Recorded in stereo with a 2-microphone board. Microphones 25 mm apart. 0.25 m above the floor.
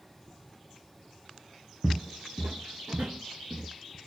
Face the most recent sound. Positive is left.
turn(degrees=-75)  # may be behind; listen again after turning